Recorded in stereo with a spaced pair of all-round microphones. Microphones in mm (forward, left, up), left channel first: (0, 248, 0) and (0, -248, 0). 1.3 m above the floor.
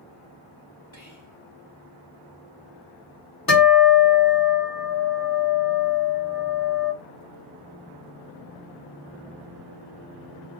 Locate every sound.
0.9 s whispering: 70° left (ahead or behind), 2 m
3.5 s a guitar: 45° left (ahead or behind), 1.9 m